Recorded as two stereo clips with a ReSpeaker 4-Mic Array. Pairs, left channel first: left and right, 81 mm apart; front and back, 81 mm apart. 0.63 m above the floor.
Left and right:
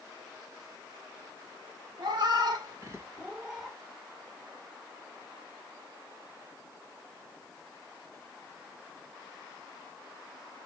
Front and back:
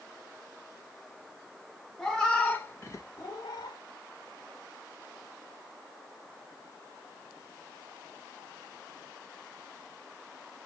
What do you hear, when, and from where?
2.0 s a cat meowing: 85° right, 1.0 m; by 3.8 s 10° left, 0.8 m